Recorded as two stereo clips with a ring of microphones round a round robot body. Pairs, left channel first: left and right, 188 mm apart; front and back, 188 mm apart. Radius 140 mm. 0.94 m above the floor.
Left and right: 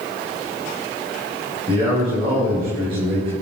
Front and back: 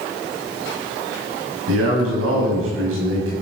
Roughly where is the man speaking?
Behind.